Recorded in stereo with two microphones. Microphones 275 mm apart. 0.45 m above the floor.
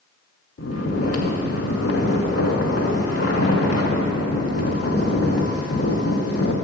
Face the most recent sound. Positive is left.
turn(degrees=55)  # may be behind; listen again after turning